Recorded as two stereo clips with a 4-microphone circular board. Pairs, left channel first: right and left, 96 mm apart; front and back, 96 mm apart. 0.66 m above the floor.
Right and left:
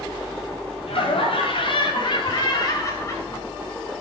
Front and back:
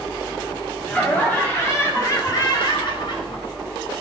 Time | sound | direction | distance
0.9 | laughter | 75° right | 5 m